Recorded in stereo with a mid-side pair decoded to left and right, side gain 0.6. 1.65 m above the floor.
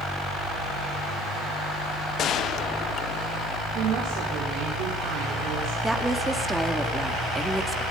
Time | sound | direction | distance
2.2 | a gunshot | 50° left | 1.0 m
3.8 | a woman speaking | 65° right | 5.5 m
5.8 | a woman speaking | 10° right | 4 m